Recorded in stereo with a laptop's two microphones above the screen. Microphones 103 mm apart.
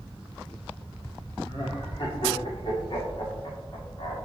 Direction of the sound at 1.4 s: 55° left (ahead or behind).